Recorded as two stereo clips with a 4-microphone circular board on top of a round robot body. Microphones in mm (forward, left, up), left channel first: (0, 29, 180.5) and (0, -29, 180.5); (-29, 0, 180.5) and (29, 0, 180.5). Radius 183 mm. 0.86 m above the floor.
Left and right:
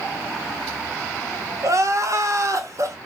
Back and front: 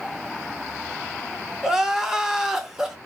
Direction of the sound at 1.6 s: 80° right.